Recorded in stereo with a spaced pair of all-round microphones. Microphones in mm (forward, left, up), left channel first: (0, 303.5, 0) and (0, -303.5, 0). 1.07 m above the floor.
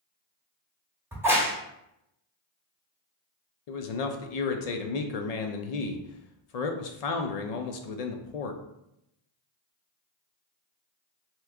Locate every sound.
1.1 s a crack: 5° right (ahead or behind), 0.8 m
3.7 s a man speaking: 85° left, 0.6 m